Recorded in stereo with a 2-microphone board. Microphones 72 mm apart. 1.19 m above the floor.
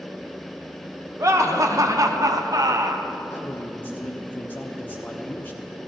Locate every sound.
1.2 s laughter: 45° right (ahead or behind), 1.5 m
3.3 s a man speaking: 25° left (ahead or behind), 1.1 m